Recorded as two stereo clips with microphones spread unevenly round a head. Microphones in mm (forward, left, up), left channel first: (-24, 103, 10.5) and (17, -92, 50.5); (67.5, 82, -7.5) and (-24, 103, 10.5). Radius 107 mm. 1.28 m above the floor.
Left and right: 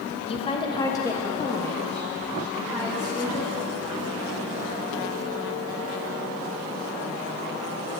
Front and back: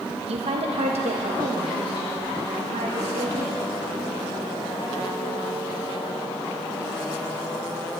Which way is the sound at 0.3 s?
160° left.